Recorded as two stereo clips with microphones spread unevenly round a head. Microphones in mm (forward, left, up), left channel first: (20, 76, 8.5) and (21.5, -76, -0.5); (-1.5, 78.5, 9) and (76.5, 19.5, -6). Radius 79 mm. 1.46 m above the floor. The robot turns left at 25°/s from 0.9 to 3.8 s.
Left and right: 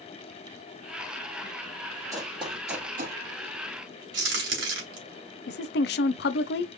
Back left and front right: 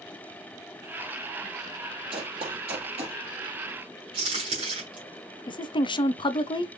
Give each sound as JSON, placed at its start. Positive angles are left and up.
{"t": 2.1, "sound": "running footsteps", "azimuth_deg": -15, "distance_m": 3.0}
{"t": 4.1, "sound": "a crack", "azimuth_deg": -100, "distance_m": 2.5}
{"t": 5.5, "sound": "a woman speaking", "azimuth_deg": 100, "distance_m": 0.7}